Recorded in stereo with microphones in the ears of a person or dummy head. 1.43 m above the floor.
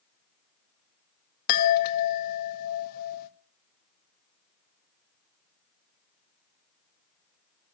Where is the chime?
55° left (ahead or behind), 1.0 m.